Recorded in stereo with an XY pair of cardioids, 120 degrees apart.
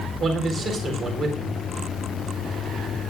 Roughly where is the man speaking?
Ahead right.